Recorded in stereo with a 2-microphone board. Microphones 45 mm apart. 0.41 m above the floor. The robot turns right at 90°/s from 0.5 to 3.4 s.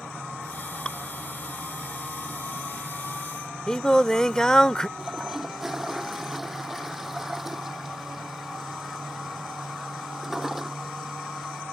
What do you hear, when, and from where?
0.8 s dripping: 20° left (ahead or behind); by 1.0 s 5° left (ahead or behind)
3.7 s singing: 15° left (ahead or behind)
5.0 s a toilet flushing: 5° right (ahead or behind)